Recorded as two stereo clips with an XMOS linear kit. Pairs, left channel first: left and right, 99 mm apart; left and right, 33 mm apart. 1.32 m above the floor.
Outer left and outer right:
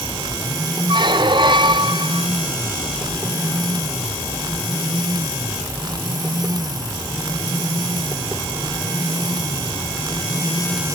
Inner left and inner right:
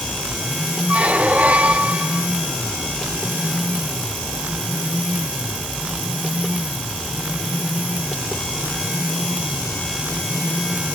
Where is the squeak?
50° right (ahead or behind).